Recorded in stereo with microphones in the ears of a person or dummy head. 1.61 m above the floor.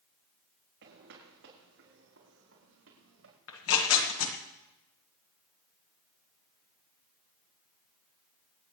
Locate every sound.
0.8 s footsteps: 65° right (ahead or behind), 6.5 m; by 3.4 s 75° right (ahead or behind), 8 m
3.5 s tearing paper: 80° left, 1.7 m